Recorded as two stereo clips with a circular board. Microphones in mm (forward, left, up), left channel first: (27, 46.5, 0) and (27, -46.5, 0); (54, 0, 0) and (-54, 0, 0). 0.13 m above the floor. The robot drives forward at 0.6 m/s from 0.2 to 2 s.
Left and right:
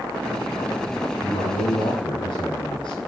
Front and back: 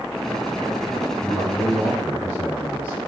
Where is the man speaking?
105° left, 3.5 m; by 3.0 s 110° left, 3.5 m.